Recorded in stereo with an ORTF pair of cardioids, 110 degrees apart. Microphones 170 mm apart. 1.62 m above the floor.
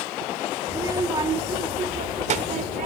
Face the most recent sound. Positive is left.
turn(degrees=-55)